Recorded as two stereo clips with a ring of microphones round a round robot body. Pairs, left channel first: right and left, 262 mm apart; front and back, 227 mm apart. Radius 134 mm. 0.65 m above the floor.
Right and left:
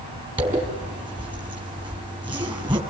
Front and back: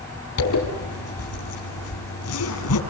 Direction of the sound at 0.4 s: 15° left.